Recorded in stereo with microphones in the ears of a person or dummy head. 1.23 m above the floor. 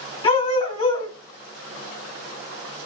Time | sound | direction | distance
0.2 | a dog barking | 35° left (ahead or behind) | 2.5 m